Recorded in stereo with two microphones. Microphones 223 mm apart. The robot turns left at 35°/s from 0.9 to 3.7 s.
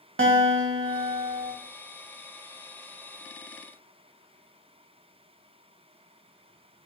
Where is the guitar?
65° right (ahead or behind), 0.5 m; by 1.5 s 60° right (ahead or behind), 0.5 m.